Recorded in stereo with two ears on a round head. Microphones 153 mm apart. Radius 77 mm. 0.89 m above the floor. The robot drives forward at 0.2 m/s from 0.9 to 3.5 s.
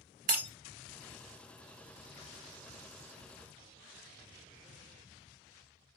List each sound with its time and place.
0.3 s breaking glass: 55° right (ahead or behind), 1.4 m